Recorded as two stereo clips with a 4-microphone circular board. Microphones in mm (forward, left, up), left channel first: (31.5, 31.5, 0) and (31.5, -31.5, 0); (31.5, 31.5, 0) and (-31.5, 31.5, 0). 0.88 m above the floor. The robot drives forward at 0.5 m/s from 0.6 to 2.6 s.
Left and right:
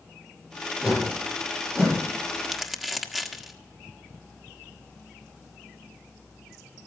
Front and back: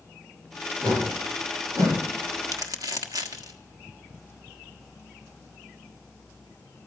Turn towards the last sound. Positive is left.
turn(degrees=-175)